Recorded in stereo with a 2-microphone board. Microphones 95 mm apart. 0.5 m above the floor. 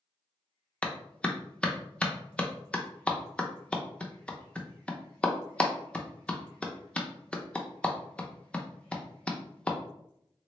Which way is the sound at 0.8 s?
10° left (ahead or behind).